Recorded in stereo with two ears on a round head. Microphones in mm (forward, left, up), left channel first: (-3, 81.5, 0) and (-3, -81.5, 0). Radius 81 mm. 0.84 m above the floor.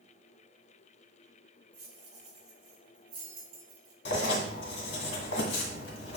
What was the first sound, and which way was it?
Keys jangling, 35° right (ahead or behind).